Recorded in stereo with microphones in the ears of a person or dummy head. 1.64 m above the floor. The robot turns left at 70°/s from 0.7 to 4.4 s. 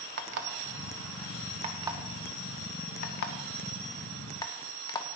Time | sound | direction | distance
0.2 | an alarm clock | 50° right (ahead or behind) | 1.2 m